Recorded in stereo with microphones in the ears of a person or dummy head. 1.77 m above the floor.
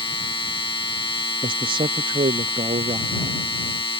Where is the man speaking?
25° right (ahead or behind).